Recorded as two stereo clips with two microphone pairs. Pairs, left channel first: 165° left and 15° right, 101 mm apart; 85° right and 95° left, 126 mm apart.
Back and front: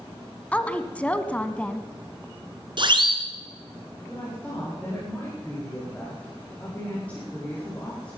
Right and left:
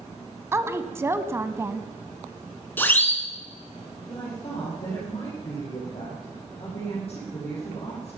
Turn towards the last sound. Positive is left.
turn(degrees=-120)